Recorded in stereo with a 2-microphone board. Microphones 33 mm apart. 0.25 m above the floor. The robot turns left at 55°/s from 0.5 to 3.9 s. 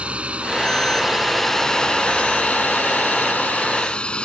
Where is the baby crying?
No baby crying in this recording.